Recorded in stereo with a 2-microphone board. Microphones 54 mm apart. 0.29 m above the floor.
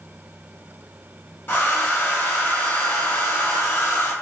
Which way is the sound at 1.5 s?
45° left (ahead or behind).